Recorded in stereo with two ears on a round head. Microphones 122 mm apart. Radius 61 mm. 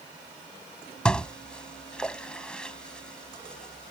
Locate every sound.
1.1 s dishes clattering: 5° left (ahead or behind)